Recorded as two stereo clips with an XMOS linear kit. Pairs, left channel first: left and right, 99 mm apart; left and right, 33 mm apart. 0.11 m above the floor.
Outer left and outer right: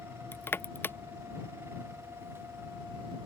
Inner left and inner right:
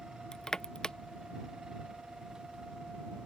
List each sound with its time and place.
0.3 s crushing: 20° left (ahead or behind)